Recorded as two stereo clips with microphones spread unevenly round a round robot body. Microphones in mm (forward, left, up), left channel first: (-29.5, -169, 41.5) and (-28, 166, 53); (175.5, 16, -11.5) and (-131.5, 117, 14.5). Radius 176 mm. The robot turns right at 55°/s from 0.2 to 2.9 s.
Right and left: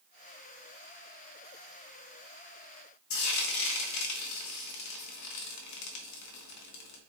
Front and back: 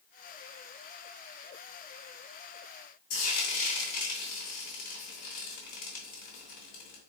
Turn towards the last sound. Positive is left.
turn(degrees=-75)